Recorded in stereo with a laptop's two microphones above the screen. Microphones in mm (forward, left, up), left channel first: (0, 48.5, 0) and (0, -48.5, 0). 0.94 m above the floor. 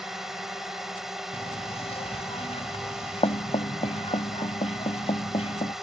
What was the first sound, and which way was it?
A drone, 5° right (ahead or behind).